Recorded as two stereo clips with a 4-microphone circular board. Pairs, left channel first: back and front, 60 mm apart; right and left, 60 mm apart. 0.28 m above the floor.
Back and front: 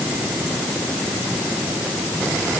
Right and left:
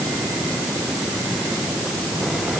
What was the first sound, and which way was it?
Only background noise.